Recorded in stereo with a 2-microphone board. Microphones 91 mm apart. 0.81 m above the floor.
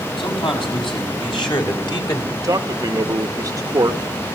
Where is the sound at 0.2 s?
65° left (ahead or behind), 6 m; by 2.2 s 50° left (ahead or behind), 3 m.